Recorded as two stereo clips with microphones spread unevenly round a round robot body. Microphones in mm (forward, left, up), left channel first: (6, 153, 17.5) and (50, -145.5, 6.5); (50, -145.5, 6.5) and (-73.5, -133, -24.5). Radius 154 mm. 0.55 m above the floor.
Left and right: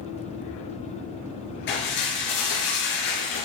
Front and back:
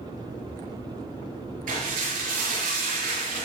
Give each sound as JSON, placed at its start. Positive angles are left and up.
{"t": 1.7, "sound": "dishes clattering", "azimuth_deg": 155, "distance_m": 7.0}